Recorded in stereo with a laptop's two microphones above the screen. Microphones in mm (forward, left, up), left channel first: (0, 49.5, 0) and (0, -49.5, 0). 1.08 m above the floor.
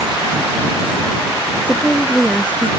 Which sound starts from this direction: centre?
A woman speaking, at 1.7 s.